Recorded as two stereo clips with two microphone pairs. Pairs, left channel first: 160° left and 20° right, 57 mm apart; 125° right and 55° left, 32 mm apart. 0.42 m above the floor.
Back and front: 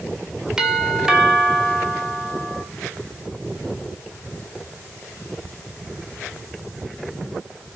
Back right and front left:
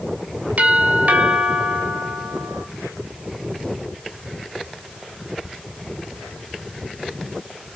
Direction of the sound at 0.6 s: 55° left.